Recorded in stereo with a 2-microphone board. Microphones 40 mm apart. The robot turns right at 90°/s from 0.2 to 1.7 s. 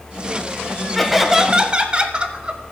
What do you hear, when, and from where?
0.9 s laughter: 170° left, 1.2 m; by 2.6 s 120° right, 1.2 m